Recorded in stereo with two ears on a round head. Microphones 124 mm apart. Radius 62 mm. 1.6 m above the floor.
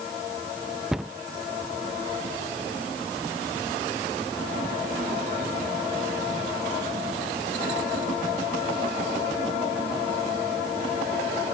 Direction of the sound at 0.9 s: 5° right (ahead or behind).